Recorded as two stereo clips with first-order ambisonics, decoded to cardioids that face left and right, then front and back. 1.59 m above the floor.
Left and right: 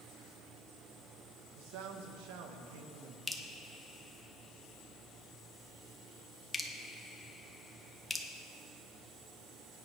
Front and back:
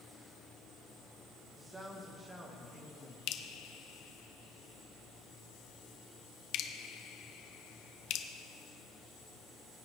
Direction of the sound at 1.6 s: 100° right.